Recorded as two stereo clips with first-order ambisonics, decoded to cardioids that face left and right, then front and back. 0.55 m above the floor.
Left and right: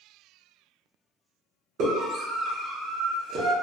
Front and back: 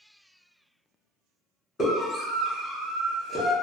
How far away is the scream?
About 1.6 m.